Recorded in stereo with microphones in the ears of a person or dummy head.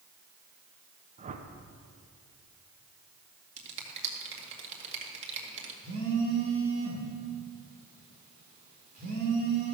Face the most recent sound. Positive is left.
turn(degrees=-40)  # may be behind; listen again after turning